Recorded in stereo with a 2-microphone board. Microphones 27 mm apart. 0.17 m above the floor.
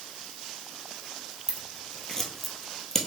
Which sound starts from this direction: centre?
Scissors, at 1.5 s.